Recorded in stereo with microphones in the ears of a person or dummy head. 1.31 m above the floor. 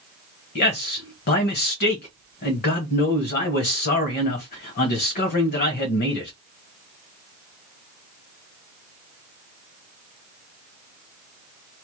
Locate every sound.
0.6 s a man speaking: 50° left (ahead or behind), 1.2 m